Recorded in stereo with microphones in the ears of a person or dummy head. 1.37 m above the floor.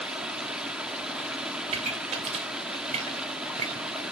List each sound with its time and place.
0.0 s running water: 5° right (ahead or behind), 0.9 m
1.7 s a pop: 35° right (ahead or behind), 2.5 m